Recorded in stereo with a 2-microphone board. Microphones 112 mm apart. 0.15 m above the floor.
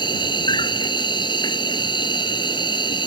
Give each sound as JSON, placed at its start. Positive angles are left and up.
{"t": 0.0, "sound": "an insect", "side_deg": 45}